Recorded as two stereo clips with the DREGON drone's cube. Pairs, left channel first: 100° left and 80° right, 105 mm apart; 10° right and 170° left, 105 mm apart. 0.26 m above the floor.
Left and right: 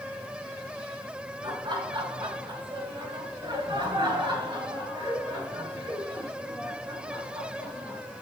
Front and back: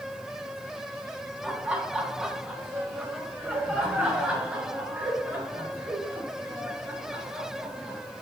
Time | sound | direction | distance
1.4 | laughter | 110° right | 2.5 m